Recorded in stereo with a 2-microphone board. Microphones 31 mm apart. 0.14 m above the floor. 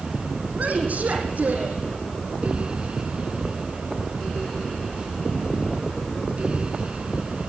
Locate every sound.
0.6 s a woman speaking: 55° right (ahead or behind), 6 m